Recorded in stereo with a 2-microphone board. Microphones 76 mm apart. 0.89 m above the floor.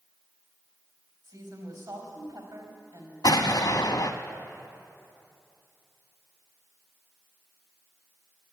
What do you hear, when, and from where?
1.2 s a woman speaking: 70° right (ahead or behind), 4 m
3.2 s an explosion: 65° left (ahead or behind), 0.8 m